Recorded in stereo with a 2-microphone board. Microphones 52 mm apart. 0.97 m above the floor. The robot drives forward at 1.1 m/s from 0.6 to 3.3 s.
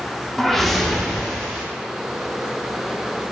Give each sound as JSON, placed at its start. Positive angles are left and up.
{"t": 0.4, "sound": "a whoosh", "side_deg": 5, "distance_m": 0.6}